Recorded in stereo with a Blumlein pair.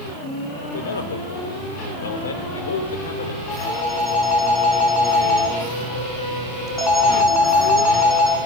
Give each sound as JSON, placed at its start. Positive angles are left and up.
{"t": 0.6, "sound": "a man speaking", "azimuth_deg": 65, "distance_m": 4.0}
{"t": 3.5, "sound": "a phone ringing", "azimuth_deg": 10, "distance_m": 7.5}